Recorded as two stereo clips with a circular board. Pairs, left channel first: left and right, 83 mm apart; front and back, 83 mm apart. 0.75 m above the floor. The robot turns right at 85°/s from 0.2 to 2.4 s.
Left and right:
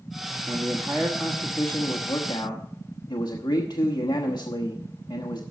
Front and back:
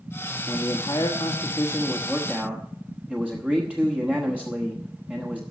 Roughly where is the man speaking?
Ahead right.